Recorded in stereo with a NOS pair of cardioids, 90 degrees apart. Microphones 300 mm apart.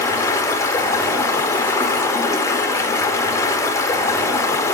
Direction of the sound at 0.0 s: 10° left.